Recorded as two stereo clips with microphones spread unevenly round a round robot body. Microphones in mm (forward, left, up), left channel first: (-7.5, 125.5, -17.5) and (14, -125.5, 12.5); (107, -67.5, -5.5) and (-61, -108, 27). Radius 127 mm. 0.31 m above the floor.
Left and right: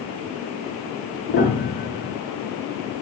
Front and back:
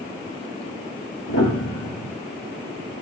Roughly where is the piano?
Ahead left.